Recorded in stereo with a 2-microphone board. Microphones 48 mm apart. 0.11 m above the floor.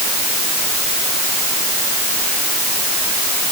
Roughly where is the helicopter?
No helicopter in this recording.